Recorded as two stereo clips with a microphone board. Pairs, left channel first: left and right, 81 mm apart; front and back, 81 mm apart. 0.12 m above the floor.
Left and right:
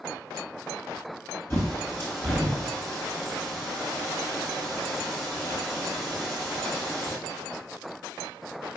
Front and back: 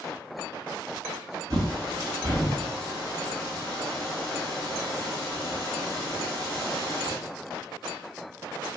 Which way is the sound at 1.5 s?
145° left.